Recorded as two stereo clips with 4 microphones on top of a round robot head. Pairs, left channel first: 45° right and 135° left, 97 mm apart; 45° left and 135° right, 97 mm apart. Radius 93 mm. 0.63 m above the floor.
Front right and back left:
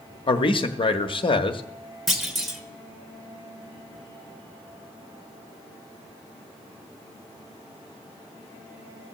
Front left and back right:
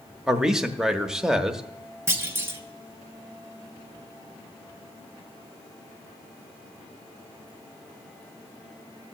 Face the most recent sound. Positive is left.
turn(degrees=-140)